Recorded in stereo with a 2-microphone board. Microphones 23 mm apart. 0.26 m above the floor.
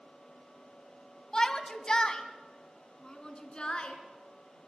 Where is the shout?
30° left (ahead or behind), 1.7 m; by 4.0 s 40° left (ahead or behind), 3.5 m.